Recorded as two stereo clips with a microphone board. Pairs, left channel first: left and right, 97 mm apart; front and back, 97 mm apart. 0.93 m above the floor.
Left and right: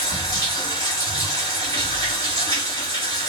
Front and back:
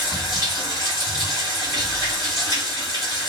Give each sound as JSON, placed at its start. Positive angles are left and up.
{"t": 0.0, "sound": "running water", "azimuth_deg": 45, "distance_m": 1.9}
{"t": 1.6, "sound": "an explosion", "azimuth_deg": 50, "distance_m": 1.7}